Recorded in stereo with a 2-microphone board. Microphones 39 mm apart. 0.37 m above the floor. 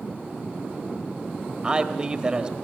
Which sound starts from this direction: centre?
A man speaking, at 1.6 s.